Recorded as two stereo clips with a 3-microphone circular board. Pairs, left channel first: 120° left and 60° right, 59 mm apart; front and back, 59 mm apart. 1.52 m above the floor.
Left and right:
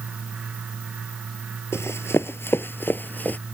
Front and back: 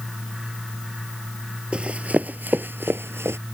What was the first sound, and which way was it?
Running footsteps, 115° left.